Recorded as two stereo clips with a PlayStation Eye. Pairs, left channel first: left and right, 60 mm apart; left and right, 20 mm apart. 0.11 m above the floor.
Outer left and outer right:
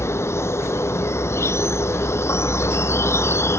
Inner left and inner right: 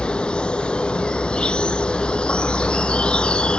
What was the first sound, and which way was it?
An insect, 55° left (ahead or behind).